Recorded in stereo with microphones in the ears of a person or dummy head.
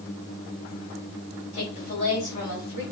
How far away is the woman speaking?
About 2.5 m.